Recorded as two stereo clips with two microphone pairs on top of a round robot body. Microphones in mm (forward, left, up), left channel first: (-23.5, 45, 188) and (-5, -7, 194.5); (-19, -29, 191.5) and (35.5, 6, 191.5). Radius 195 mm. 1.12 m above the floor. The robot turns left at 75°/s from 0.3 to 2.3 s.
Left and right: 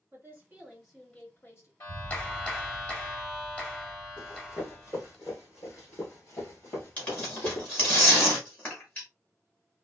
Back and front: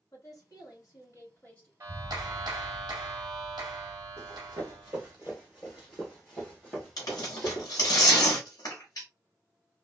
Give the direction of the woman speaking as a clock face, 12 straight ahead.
4 o'clock.